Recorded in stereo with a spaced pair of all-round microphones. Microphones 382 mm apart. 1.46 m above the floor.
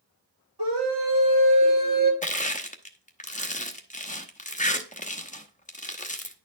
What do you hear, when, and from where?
0.6 s a scream: 70° right (ahead or behind), 6 m; by 2.1 s 65° right (ahead or behind), 5 m
2.2 s crushing: 20° left (ahead or behind), 0.9 m